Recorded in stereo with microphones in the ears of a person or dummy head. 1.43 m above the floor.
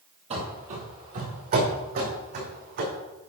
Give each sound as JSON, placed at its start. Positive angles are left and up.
{"t": 0.3, "sound": "running footsteps", "side_deg": -30, "distance_m": 2.0}